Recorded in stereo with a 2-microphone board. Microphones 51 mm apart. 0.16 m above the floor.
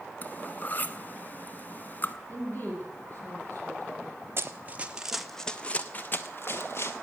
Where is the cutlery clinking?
35° left (ahead or behind), 0.9 m.